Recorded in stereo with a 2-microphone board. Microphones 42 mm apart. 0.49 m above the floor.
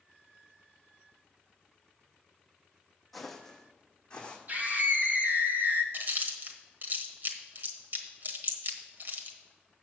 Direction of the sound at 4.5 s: 50° right (ahead or behind).